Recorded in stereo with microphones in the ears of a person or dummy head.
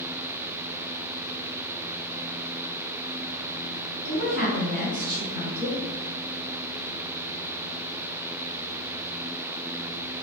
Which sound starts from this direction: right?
A woman speaking, at 4.0 s.